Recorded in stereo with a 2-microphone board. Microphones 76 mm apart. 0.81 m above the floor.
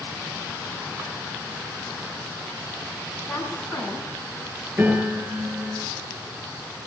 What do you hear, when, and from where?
3.2 s a woman speaking: 5° left (ahead or behind), 9 m
4.8 s a piano: 35° right (ahead or behind), 9.5 m